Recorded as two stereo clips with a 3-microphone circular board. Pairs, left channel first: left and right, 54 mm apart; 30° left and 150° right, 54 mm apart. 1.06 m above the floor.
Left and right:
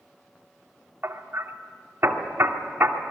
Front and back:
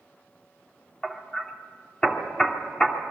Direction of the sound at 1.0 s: 45° right.